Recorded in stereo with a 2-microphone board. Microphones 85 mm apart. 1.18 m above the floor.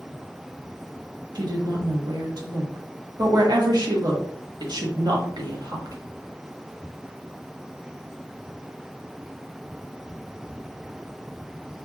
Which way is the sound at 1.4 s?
55° right (ahead or behind).